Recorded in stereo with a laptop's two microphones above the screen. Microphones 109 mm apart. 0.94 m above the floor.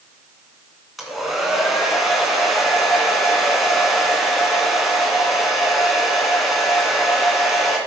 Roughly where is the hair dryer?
Centre.